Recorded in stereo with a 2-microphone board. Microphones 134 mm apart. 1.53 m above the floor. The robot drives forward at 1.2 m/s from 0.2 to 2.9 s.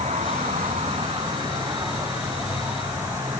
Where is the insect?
70° right (ahead or behind), 1.2 m; by 3.4 s 20° right (ahead or behind), 3.5 m.